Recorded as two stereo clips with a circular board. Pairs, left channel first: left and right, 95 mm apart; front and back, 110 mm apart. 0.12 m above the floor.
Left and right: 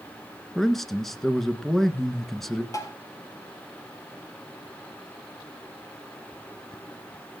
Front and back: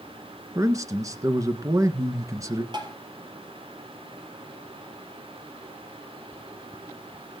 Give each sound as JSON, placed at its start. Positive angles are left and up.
{"t": 0.6, "sound": "a man speaking", "azimuth_deg": 175, "distance_m": 1.4}
{"t": 2.7, "sound": "tapping", "azimuth_deg": 140, "distance_m": 3.0}